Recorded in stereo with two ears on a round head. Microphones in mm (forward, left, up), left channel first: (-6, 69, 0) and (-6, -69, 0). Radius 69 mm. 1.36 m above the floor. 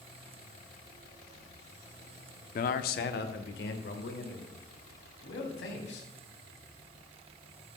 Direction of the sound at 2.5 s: 55° left (ahead or behind).